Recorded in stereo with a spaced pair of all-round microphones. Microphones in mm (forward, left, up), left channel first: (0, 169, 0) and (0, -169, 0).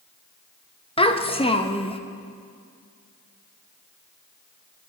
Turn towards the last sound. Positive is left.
turn(degrees=15)  # may be behind; listen again after turning